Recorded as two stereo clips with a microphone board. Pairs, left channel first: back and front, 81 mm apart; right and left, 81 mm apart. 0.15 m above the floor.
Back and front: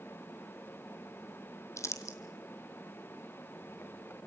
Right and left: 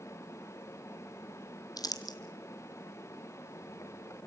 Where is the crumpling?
130° right, 1.8 m.